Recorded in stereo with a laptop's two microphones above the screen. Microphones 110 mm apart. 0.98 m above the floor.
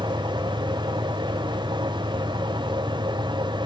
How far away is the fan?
About 1.0 m.